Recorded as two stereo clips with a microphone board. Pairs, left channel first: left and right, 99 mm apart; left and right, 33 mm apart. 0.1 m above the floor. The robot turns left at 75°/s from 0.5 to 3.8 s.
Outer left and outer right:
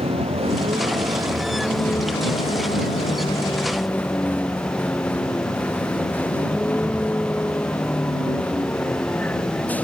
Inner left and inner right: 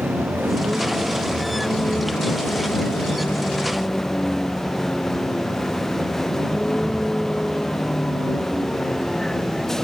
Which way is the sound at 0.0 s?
85° right.